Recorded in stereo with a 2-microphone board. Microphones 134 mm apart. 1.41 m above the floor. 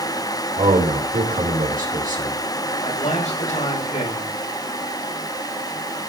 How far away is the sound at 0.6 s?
About 4 m.